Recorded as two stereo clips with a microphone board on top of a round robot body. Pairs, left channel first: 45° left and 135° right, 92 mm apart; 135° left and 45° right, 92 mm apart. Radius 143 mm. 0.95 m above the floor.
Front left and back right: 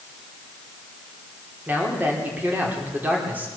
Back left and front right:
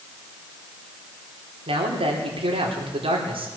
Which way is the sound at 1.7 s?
65° right.